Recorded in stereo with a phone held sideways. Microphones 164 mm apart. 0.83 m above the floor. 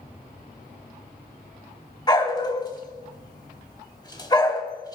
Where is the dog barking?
25° left (ahead or behind), 1.0 m.